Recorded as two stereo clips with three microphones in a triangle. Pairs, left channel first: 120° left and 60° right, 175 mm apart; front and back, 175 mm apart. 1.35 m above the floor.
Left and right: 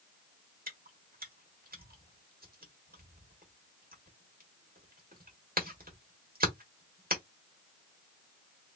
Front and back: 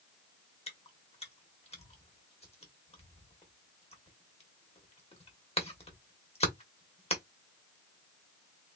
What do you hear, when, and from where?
0.7 s chewing: 50° right, 1.5 m